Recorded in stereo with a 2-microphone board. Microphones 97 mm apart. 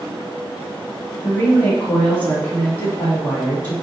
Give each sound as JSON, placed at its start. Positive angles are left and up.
{"t": 1.2, "sound": "a woman speaking", "side_deg": 15, "distance_m": 1.7}